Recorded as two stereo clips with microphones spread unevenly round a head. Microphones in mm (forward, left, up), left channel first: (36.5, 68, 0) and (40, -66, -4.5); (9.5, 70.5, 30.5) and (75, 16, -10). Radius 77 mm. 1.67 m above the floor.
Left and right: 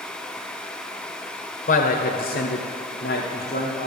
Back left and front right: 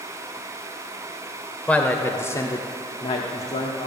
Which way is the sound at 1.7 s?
60° left.